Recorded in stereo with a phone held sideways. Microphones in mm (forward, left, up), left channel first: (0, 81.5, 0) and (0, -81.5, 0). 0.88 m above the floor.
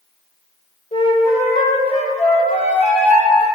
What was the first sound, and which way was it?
A flute, 40° left (ahead or behind).